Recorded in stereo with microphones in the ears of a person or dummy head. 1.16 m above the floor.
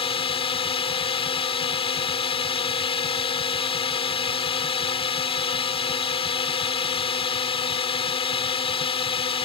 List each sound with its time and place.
0.0 s a drone: 30° left (ahead or behind)